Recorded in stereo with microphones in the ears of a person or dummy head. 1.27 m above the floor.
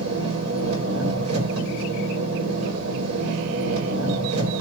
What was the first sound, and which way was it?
An engine running, 80° right.